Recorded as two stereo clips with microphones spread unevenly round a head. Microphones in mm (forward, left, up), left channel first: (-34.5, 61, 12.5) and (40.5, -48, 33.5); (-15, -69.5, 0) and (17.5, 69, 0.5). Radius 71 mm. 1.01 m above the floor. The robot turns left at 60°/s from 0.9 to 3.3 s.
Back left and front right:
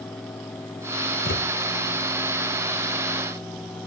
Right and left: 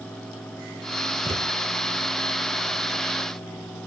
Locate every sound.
1.2 s a thud: 140° left; by 1.5 s 125° left